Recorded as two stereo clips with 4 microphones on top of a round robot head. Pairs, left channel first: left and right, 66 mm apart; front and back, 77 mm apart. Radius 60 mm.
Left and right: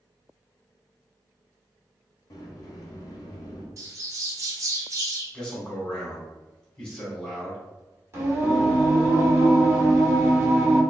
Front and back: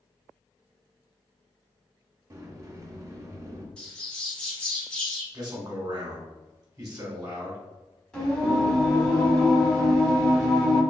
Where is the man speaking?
160° left, 1.2 m.